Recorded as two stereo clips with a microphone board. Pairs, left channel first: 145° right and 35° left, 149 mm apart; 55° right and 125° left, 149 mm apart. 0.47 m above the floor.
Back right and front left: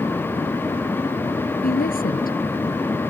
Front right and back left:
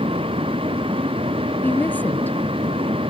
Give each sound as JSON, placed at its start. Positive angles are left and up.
{"t": 1.6, "sound": "a woman speaking", "azimuth_deg": -135}